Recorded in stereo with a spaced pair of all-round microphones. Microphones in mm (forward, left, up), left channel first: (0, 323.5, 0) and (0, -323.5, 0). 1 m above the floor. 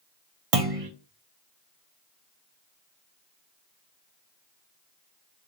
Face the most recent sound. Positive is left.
turn(degrees=-60)  # may be behind; listen again after turning